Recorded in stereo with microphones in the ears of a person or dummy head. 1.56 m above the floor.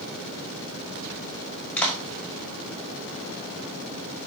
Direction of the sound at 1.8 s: 5° left (ahead or behind).